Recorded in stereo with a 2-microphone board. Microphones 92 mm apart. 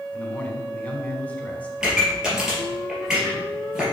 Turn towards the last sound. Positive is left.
turn(degrees=-10)  # may be behind; listen again after turning